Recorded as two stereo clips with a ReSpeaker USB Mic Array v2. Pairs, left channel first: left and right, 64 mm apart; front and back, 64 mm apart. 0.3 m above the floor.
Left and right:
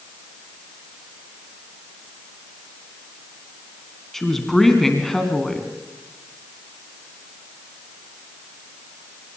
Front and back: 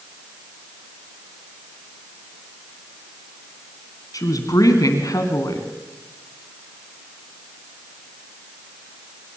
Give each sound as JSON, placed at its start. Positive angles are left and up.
{"t": 4.1, "sound": "a woman speaking", "azimuth_deg": 5, "distance_m": 2.5}